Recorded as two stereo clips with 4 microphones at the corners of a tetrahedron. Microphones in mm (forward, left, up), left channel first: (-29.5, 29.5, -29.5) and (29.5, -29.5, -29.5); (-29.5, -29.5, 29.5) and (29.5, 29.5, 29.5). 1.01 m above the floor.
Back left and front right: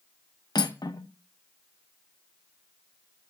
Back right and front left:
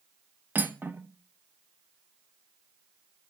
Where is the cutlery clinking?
110° left, 0.5 m.